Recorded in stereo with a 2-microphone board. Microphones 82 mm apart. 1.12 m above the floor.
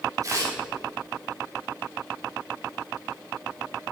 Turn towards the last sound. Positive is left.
turn(degrees=-40)  # may be behind; listen again after turning